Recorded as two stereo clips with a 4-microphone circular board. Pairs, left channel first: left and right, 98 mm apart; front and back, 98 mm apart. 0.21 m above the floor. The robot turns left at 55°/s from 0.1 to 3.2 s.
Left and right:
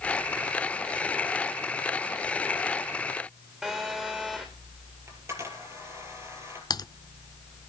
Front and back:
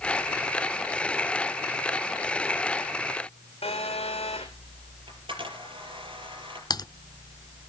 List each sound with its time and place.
3.6 s a phone buzzing: 5° right, 3.5 m
5.1 s a camera shutter: 150° right, 6 m
6.7 s typing on a keyboard: 45° left, 0.5 m